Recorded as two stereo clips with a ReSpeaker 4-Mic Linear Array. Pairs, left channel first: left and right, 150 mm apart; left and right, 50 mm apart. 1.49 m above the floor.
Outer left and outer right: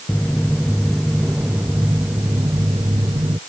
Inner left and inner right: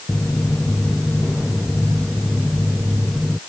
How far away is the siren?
No siren in this recording.